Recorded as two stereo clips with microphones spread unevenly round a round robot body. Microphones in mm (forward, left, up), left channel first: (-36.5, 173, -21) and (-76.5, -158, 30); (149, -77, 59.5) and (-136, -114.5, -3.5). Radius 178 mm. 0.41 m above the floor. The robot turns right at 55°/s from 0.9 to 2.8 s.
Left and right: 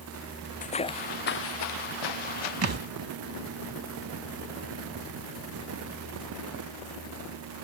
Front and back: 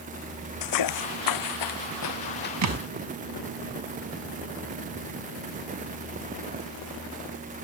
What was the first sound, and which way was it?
Footsteps, 10° left.